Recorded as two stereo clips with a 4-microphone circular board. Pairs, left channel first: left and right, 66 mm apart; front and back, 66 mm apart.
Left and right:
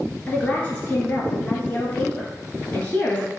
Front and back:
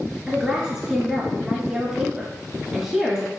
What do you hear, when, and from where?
0.3 s a woman speaking: 120° left, 1.3 m